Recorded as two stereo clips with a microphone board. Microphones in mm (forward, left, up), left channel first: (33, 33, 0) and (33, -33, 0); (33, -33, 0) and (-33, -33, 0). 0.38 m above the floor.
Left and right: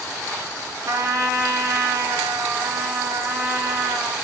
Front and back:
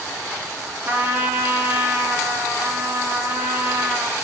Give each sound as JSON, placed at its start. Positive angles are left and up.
{"t": 0.9, "sound": "a trumpet", "azimuth_deg": -120, "distance_m": 3.5}